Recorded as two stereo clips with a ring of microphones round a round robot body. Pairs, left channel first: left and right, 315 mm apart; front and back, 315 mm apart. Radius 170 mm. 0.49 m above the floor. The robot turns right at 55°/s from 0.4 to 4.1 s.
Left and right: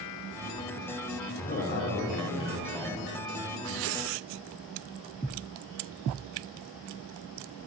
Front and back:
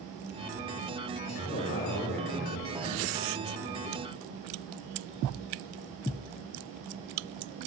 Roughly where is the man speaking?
Ahead left.